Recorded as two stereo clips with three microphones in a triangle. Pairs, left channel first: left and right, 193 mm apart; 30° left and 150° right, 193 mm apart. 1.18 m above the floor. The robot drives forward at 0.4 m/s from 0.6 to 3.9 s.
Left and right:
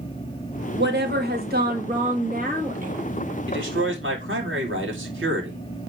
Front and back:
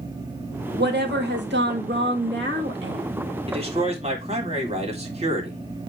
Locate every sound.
0.8 s a woman speaking: 120° right, 2 m; by 3.3 s 140° right, 2.5 m
3.5 s a man speaking: 90° right, 3 m